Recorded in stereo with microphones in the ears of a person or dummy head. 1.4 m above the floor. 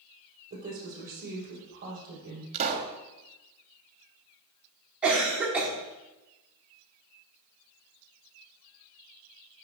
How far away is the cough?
About 1.8 m.